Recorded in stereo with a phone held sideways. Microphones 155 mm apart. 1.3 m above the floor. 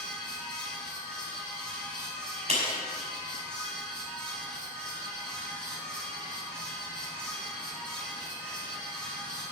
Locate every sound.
0.0 s a fan: 5° left (ahead or behind), 3.5 m
2.5 s a clap: 45° right (ahead or behind), 4.5 m